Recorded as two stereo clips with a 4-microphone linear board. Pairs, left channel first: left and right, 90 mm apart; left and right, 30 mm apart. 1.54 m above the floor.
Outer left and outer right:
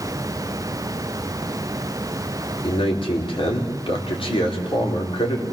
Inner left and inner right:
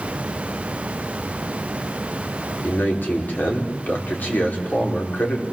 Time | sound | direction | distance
2.6 | a man speaking | 80° left | 5 m